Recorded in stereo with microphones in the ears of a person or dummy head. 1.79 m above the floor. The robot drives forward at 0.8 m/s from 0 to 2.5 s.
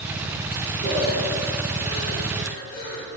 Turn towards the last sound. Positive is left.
turn(degrees=65)  # may be behind; listen again after turning